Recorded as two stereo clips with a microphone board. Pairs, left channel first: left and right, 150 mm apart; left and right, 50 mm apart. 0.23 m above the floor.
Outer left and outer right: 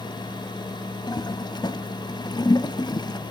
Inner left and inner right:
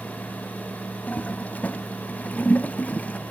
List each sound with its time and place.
1.1 s a toilet flushing: 30° left (ahead or behind), 0.6 m